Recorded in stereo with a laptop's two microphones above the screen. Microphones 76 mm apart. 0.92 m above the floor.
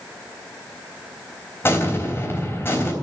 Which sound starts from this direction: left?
An explosion, at 1.6 s.